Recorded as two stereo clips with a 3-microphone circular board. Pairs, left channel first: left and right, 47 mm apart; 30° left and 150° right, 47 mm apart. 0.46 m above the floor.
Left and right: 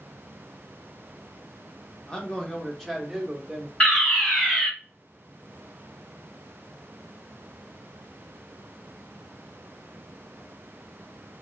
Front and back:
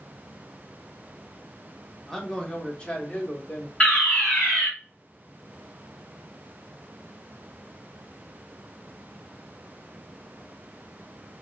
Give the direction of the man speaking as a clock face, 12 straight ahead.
9 o'clock.